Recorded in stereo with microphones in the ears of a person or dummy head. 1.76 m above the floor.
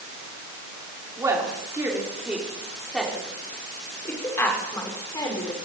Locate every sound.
1.2 s a woman speaking: 20° right (ahead or behind), 6 m; by 5.7 s 20° left (ahead or behind), 7.5 m